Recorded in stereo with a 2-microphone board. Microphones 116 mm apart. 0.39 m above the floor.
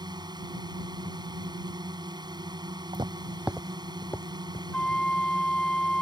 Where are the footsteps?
45° right (ahead or behind); by 4.6 s 30° left (ahead or behind).